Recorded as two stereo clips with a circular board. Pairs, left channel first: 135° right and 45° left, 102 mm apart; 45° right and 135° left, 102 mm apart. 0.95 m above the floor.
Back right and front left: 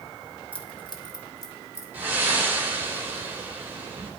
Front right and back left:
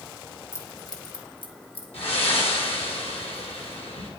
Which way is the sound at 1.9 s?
30° right.